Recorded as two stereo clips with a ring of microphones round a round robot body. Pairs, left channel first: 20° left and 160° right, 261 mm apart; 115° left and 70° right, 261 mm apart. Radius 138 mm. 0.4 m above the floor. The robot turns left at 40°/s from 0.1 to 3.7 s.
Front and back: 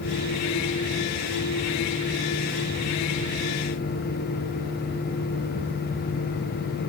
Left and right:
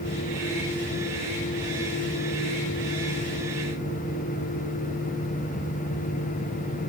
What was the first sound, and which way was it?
Only background noise.